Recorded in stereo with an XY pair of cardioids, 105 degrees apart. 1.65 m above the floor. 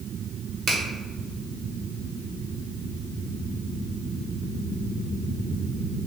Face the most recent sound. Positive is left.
turn(degrees=-55)